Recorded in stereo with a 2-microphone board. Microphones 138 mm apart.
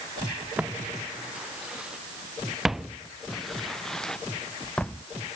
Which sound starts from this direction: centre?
Footsteps, at 0.6 s.